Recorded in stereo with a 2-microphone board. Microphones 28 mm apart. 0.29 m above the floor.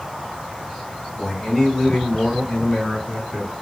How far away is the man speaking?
About 1.4 m.